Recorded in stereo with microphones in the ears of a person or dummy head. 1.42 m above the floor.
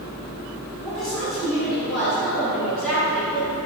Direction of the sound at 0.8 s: 10° left (ahead or behind).